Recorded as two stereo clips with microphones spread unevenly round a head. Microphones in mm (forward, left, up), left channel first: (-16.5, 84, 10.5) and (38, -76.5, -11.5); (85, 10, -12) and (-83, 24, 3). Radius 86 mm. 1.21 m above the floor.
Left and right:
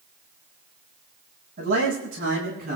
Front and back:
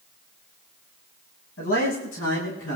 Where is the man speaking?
30° right, 8 m.